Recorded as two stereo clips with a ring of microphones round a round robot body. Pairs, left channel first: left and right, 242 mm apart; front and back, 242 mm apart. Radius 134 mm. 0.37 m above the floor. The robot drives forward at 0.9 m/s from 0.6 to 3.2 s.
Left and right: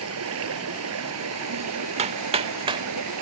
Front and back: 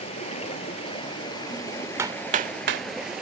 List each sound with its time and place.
0.0 s running water: 70° right; by 3.2 s 90° right
2.0 s hammering: 110° right; by 2.9 s 160° right